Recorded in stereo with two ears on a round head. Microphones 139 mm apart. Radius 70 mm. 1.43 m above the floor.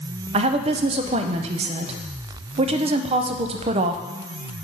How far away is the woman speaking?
About 0.5 m.